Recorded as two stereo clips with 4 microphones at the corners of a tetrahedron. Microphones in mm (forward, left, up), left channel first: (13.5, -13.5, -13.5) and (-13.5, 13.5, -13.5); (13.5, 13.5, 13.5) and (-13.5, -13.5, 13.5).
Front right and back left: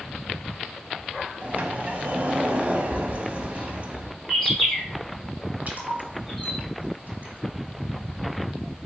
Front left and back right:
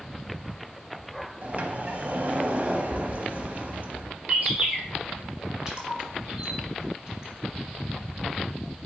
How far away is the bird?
About 1.7 m.